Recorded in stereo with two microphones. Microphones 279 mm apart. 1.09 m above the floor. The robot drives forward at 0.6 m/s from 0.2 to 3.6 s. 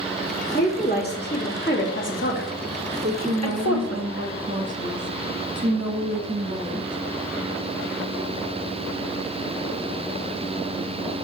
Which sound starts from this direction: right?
A woman speaking, at 3.0 s.